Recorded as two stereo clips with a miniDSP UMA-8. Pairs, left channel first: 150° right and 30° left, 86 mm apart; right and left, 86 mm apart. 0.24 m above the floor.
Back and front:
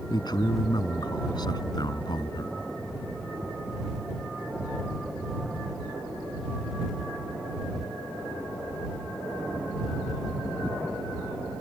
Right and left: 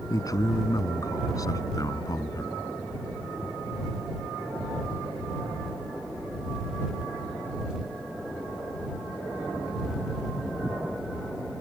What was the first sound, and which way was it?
A man speaking, 130° right.